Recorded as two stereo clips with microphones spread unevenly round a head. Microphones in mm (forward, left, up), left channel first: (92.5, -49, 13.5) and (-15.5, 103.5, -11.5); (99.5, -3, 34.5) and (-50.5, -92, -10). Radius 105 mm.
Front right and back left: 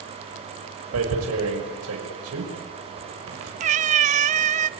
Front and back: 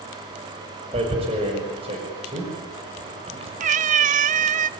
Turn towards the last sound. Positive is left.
turn(degrees=160)